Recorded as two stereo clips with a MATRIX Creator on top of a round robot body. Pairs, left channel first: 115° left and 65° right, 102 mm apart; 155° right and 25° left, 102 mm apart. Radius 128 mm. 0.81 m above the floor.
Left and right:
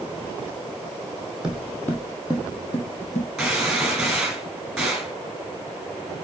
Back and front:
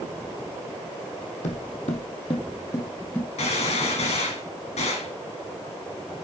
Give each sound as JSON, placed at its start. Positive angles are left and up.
{"t": 1.4, "sound": "footsteps", "azimuth_deg": -150, "distance_m": 1.3}
{"t": 3.4, "sound": "a gunshot", "azimuth_deg": -155, "distance_m": 4.0}